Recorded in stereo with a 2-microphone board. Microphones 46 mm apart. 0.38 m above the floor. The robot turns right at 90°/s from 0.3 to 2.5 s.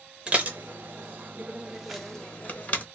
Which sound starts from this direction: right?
Dishes clattering, at 0.3 s.